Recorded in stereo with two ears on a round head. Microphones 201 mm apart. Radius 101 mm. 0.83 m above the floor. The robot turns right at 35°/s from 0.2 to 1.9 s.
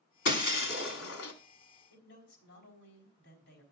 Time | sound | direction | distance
0.2 | breaking glass | 50° left | 1.6 m
1.9 | a man speaking | 60° left (ahead or behind) | 4.5 m